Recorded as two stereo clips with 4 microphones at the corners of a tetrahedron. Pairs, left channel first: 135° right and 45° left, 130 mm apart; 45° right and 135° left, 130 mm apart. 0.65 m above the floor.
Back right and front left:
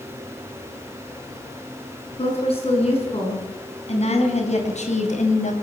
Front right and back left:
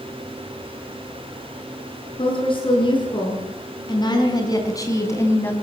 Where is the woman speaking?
95° right, 7.5 m; by 5.5 s 120° right, 3.5 m.